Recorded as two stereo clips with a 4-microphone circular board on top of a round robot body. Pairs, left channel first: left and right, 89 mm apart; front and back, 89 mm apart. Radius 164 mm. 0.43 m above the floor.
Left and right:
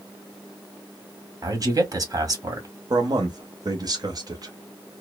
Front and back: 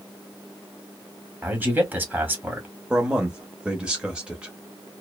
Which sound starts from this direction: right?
A man speaking, at 2.9 s.